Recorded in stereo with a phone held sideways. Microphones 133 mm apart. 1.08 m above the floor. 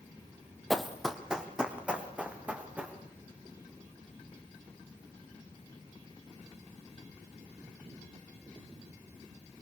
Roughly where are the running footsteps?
Centre.